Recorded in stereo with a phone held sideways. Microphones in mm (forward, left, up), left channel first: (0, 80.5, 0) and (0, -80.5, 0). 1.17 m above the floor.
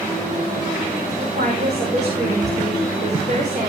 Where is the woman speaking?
50° right (ahead or behind), 5 m.